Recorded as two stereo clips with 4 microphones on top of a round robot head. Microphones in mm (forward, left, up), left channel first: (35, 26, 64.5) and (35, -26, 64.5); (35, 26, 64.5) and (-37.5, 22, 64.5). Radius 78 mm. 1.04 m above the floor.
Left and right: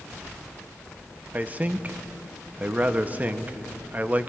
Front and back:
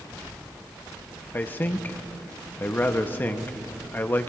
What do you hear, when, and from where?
1.3 s a man speaking: 45° right, 0.8 m